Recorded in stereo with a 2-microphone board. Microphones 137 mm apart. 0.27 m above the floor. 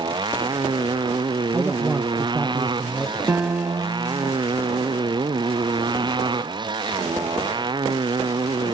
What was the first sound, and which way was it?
A motorcycle, 35° right (ahead or behind).